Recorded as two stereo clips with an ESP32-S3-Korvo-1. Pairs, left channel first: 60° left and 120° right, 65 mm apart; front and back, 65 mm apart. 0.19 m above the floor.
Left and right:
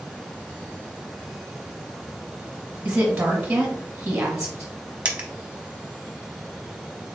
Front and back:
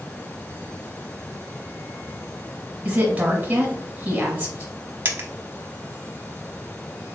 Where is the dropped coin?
170° right, 0.7 m.